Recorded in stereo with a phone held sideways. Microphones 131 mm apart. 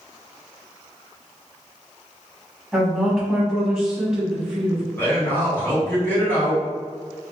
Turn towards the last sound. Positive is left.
turn(degrees=15)  # may be behind; listen again after turning